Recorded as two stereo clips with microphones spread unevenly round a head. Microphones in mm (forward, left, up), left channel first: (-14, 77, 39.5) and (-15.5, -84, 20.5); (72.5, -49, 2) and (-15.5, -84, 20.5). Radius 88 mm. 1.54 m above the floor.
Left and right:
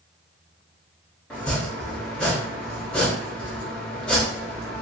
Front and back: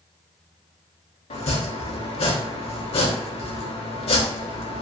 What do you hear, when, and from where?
1.3 s chopping: 5° left, 0.6 m